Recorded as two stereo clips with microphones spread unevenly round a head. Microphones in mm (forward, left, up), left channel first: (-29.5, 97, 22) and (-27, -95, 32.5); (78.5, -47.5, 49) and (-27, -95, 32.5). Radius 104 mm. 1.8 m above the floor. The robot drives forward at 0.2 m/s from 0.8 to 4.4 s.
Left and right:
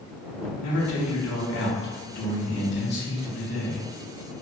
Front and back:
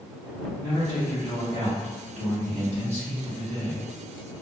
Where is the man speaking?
90° left, 0.7 m; by 3.8 s 130° left, 0.9 m.